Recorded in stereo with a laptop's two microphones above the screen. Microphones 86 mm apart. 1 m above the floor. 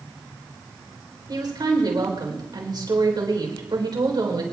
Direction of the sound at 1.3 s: 55° right (ahead or behind).